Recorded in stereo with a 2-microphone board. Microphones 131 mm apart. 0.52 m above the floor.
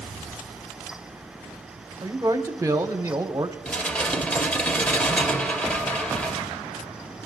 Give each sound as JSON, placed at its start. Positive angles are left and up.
{"t": 2.0, "sound": "a man speaking", "side_deg": -25, "distance_m": 1.1}
{"t": 3.6, "sound": "dishes clattering", "side_deg": 10, "distance_m": 1.0}